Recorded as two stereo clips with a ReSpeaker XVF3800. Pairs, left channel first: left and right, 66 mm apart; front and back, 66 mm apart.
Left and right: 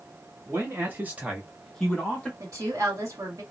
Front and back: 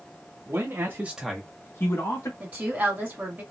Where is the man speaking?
140° right, 1.4 m; by 2.3 s 25° left, 1.4 m.